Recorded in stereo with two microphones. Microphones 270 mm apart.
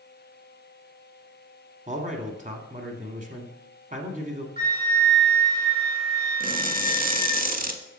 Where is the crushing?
30° right (ahead or behind), 0.6 m.